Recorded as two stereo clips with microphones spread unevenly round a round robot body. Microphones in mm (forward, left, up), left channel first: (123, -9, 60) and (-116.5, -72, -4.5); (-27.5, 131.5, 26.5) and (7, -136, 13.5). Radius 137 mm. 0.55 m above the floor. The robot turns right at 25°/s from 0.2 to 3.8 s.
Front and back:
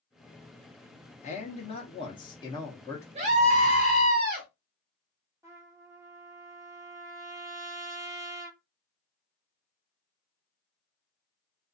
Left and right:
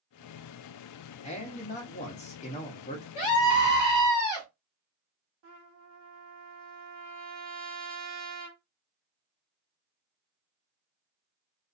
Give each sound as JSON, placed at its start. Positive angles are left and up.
{"t": 1.2, "sound": "a man speaking", "azimuth_deg": 70, "distance_m": 0.7}
{"t": 3.1, "sound": "a scream", "azimuth_deg": 160, "distance_m": 0.8}
{"t": 5.4, "sound": "a trumpet", "azimuth_deg": -100, "distance_m": 1.1}